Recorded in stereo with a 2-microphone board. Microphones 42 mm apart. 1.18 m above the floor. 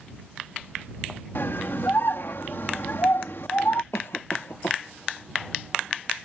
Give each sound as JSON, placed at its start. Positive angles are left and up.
{"t": 1.4, "sound": "a scream", "side_deg": 60}
{"t": 3.9, "sound": "a cough", "side_deg": 85}